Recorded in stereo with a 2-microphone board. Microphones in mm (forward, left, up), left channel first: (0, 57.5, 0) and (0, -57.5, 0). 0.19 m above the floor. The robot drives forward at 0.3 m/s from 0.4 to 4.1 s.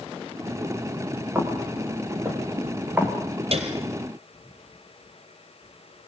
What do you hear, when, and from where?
1.4 s footsteps: 20° right (ahead or behind), 6 m; by 3.1 s 15° right (ahead or behind), 5 m
3.5 s a piano: 60° right (ahead or behind), 3 m